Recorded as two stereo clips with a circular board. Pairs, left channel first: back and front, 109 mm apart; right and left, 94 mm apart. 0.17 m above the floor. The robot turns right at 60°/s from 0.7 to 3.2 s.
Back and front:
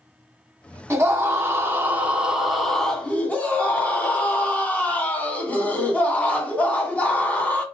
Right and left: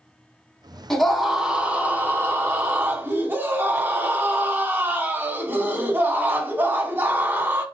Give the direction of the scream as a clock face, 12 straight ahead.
12 o'clock.